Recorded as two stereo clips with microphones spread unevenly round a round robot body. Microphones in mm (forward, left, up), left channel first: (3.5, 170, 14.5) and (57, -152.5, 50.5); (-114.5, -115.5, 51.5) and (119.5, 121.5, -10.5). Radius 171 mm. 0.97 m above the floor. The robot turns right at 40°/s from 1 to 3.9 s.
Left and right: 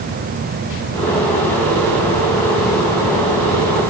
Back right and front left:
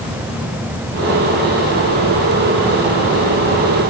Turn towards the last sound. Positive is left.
No sound to turn to.